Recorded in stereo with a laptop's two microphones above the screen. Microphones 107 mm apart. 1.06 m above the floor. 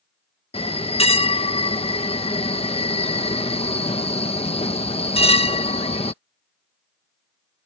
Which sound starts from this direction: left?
A bell, at 0.5 s.